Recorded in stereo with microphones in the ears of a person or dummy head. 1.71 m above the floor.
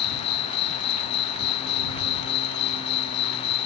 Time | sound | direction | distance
0.0 | an insect | 55° left (ahead or behind) | ?